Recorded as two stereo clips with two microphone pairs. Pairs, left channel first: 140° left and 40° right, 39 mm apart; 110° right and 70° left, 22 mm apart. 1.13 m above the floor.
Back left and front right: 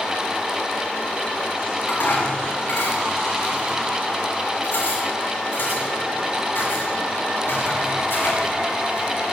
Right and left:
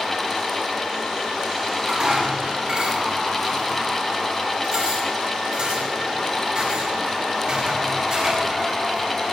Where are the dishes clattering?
110° left, 6.5 m.